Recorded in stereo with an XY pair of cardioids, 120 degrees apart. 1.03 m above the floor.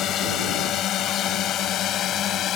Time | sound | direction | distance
0.0 | a drone | 65° left | ?